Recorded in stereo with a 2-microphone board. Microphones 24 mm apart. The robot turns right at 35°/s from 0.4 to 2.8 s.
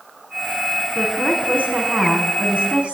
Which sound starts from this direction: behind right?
A woman speaking, at 0.9 s.